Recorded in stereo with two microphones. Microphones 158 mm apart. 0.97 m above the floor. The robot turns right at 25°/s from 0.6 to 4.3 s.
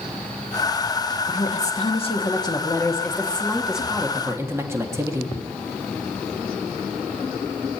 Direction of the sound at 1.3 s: 120° left.